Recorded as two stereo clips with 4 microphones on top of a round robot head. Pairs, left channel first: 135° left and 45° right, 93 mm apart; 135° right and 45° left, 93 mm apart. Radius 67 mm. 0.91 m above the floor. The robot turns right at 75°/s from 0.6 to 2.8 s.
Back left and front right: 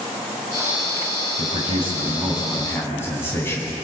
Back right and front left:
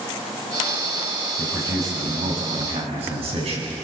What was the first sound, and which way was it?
A man speaking, 40° right.